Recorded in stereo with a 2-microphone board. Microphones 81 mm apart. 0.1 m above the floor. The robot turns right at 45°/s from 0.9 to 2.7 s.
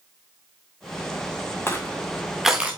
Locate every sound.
1.7 s crushing: 30° left (ahead or behind), 1.8 m; by 2.8 s 15° right (ahead or behind), 1.8 m